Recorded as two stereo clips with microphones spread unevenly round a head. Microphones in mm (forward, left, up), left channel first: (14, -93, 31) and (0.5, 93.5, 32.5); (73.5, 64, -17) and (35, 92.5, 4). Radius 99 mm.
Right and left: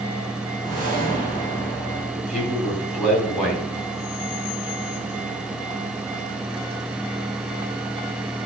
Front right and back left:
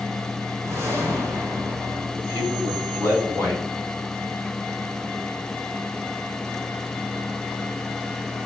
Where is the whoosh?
145° left, 3 m.